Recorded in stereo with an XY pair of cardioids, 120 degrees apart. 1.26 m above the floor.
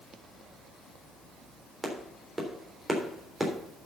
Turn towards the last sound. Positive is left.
turn(degrees=-15)